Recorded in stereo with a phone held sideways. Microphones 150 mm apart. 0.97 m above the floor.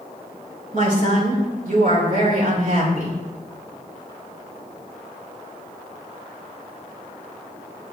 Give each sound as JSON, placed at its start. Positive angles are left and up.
{"t": 0.7, "sound": "a woman speaking", "side_deg": -65, "distance_m": 3.0}